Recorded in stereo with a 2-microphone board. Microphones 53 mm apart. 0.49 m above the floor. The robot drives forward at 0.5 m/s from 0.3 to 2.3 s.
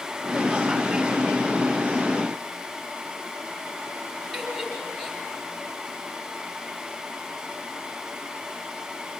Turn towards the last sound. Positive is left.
turn(degrees=5)  # may be behind; listen again after turning